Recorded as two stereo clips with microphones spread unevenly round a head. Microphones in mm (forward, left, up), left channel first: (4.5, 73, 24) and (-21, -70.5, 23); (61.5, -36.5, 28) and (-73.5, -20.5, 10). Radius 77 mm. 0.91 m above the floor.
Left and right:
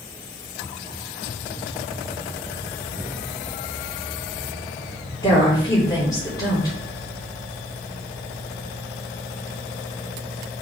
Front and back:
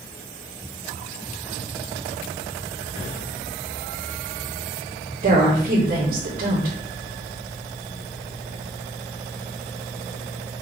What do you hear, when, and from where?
5.2 s a woman speaking: 150° left, 3 m